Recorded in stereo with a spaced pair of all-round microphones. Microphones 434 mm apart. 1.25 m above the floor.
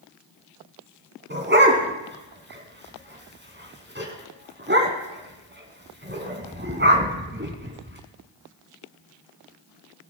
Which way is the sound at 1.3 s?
25° right (ahead or behind).